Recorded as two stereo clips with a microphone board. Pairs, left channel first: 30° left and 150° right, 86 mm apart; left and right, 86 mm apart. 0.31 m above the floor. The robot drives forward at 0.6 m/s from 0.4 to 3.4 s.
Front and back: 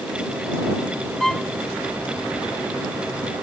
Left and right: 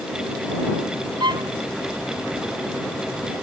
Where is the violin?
55° right; by 1.5 s 60° right.